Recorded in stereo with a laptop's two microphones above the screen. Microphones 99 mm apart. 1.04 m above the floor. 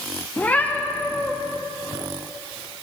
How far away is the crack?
I don't hear a crack.